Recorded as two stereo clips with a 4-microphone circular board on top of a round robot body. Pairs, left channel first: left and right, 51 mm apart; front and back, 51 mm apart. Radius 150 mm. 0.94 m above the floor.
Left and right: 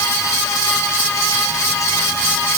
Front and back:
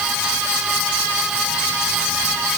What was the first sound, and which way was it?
Only background noise.